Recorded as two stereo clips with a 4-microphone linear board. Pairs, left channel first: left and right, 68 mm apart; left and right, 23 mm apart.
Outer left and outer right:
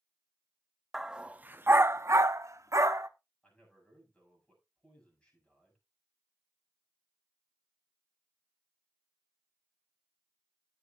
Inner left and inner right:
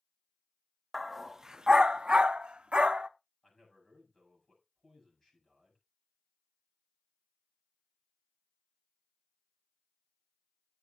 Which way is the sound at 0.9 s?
5° right (ahead or behind).